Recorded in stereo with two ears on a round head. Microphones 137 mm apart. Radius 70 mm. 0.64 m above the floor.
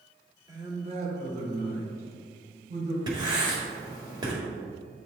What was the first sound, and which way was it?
A man speaking, 25° right (ahead or behind).